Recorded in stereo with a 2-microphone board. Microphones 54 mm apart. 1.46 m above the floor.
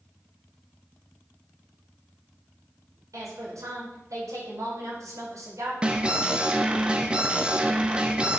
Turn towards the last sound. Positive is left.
turn(degrees=-20)  # may be behind; listen again after turning